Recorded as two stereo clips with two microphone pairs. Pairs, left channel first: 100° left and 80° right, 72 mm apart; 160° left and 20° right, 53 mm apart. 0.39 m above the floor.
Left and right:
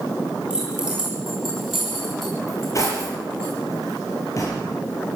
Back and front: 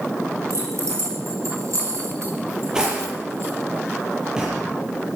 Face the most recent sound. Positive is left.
turn(degrees=60)